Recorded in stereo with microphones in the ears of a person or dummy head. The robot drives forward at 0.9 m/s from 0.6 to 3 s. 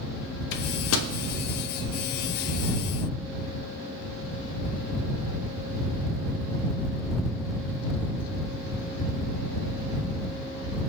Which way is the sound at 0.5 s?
65° left (ahead or behind).